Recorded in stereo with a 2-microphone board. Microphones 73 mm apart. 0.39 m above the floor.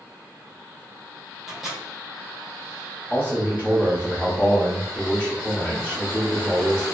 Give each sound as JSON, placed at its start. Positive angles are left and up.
{"t": 1.5, "sound": "a microwave", "side_deg": 0, "distance_m": 1.0}
{"t": 3.1, "sound": "a man speaking", "side_deg": 25, "distance_m": 1.3}